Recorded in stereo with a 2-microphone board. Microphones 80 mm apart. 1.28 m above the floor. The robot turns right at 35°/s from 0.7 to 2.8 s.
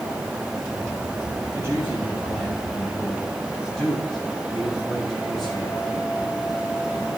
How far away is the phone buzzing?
No phone buzzing in this recording.